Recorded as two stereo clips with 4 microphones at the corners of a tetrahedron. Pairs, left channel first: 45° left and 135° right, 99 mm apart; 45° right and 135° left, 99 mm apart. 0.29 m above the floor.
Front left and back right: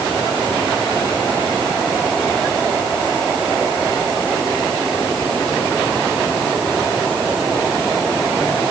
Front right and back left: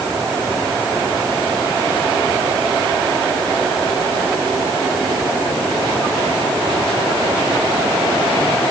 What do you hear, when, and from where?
Only background noise.